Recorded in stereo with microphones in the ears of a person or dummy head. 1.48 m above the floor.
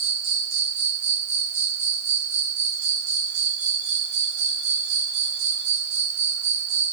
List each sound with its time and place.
0.0 s an insect: 85° right, 1.3 m